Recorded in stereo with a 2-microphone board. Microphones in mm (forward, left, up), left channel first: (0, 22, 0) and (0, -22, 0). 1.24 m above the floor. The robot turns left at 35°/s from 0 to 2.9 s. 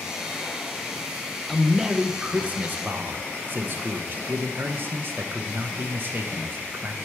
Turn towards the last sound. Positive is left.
turn(degrees=-50)